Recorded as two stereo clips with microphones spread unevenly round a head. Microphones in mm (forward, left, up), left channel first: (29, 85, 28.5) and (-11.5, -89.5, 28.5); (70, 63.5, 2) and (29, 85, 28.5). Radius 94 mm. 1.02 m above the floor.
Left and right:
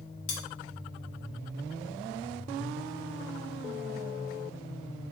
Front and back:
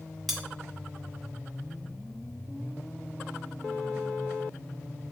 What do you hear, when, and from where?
0.3 s cutlery clinking: 65° left, 0.7 m